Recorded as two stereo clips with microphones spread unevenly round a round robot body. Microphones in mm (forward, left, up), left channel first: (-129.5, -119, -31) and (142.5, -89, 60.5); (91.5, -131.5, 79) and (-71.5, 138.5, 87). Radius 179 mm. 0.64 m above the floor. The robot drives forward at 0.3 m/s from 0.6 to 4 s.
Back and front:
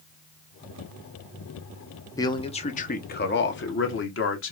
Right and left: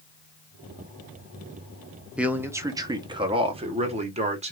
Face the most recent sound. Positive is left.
turn(degrees=-170)